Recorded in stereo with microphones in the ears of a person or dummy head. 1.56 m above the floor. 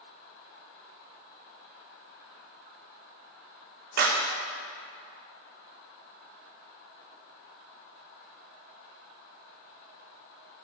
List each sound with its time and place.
4.0 s a clap: 50° right (ahead or behind), 0.7 m